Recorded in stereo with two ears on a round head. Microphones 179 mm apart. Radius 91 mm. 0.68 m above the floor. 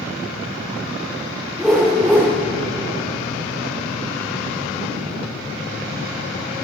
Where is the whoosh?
Centre (ahead or behind), 9.5 m.